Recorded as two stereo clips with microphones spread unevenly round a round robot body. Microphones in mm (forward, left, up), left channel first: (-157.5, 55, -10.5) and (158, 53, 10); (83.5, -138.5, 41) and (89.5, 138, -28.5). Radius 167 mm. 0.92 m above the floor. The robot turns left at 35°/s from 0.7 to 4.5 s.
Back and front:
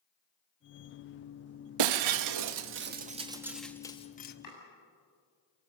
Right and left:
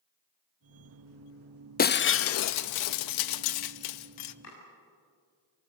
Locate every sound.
1.8 s breaking glass: 25° right, 0.6 m; by 4.3 s 115° right, 0.6 m
4.4 s chopping: 140° right, 7 m